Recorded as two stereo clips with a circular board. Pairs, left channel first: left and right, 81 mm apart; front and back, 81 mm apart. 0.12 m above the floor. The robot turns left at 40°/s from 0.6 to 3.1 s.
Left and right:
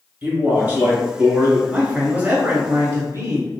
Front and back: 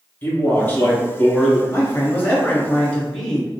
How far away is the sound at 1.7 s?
About 1.4 m.